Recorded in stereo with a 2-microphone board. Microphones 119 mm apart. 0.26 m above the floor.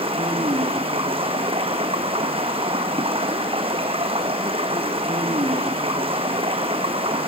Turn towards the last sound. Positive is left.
turn(degrees=-55)  # may be behind; listen again after turning